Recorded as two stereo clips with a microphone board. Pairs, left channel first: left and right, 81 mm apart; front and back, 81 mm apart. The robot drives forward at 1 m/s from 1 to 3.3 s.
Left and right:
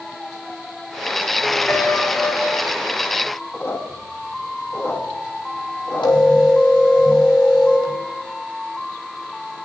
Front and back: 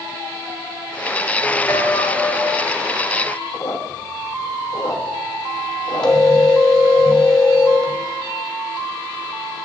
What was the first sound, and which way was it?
A piano, 35° left.